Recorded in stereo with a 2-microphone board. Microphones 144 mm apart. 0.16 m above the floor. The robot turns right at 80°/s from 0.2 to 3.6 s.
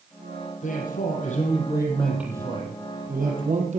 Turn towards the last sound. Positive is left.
turn(degrees=-60)